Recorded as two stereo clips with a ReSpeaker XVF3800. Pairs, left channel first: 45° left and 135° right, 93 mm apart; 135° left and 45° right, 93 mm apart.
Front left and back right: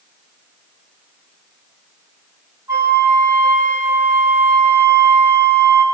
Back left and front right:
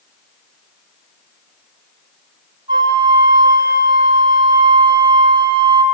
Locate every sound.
2.7 s a flute: 80° right, 6 m